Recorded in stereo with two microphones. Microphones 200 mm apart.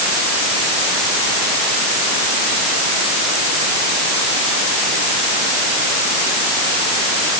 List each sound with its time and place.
Only background noise.